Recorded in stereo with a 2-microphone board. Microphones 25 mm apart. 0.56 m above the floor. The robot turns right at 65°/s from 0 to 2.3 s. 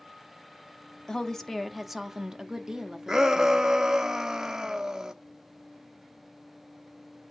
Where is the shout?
20° right (ahead or behind), 0.7 m.